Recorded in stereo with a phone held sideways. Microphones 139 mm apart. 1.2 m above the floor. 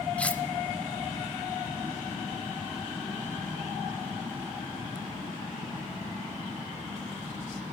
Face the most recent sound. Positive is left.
turn(degrees=10)  # may be behind; listen again after turning